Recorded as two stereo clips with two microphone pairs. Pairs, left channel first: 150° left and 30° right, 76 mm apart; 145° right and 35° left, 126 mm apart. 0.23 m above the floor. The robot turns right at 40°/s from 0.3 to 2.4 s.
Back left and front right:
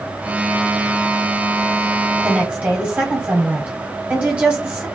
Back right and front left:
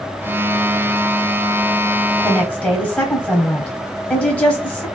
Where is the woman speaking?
85° right, 1.0 m; by 4.9 s 80° right, 1.0 m.